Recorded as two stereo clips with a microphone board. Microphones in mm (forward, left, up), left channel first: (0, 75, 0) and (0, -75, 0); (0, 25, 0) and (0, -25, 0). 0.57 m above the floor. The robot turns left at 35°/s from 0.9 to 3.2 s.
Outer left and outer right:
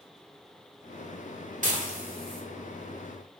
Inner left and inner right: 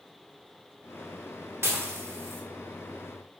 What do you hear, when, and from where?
1.6 s dishes clattering: 55° right (ahead or behind), 1.4 m; by 2.4 s 70° right (ahead or behind), 1.4 m